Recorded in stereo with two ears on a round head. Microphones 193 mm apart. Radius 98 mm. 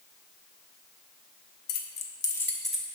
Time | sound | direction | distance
1.7 | keys jangling | 50° left (ahead or behind) | 0.8 m